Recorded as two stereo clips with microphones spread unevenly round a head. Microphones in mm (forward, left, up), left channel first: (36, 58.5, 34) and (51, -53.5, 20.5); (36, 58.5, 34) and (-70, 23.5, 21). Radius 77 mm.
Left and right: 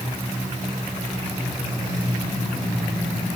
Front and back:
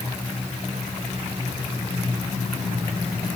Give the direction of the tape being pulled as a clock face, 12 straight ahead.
No tape being pulled in this recording.